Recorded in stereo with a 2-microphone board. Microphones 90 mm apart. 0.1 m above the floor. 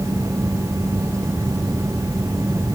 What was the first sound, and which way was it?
Only background noise.